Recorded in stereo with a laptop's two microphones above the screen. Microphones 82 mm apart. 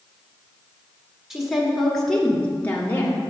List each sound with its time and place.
1.3 s a woman speaking: 5° right (ahead or behind), 2.5 m; by 3.2 s 30° left (ahead or behind), 1.7 m